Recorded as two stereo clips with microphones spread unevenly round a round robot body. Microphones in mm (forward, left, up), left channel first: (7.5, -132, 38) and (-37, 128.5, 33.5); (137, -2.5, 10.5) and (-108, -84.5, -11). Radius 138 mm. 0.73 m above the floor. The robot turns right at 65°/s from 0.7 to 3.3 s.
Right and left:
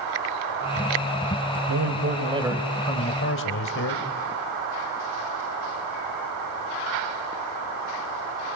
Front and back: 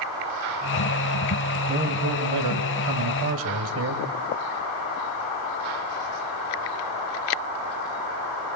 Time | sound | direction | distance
1.7 | a man speaking | 130° left | 3 m